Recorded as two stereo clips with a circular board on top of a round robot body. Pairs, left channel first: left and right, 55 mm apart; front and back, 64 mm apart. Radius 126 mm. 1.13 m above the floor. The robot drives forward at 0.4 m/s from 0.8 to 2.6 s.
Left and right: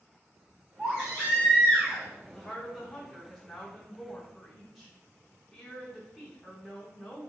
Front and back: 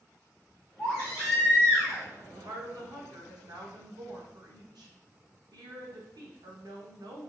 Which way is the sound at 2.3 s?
170° left.